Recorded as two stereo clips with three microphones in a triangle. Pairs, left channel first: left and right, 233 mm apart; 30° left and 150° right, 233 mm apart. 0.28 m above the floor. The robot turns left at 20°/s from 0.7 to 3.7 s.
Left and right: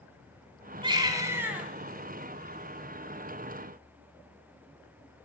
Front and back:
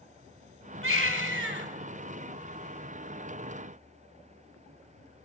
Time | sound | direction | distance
0.8 | a baby crying | 160° right | 1.6 m